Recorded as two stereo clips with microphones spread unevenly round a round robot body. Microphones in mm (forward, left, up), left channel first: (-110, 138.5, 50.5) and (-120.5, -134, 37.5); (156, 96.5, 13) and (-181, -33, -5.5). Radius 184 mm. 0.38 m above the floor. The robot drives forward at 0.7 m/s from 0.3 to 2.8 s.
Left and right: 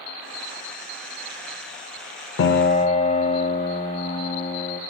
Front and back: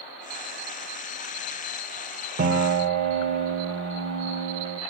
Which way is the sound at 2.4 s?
140° left.